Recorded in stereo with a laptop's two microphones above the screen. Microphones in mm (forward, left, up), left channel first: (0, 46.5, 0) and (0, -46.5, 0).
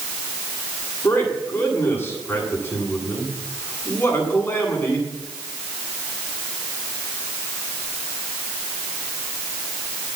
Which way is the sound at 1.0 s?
25° left (ahead or behind).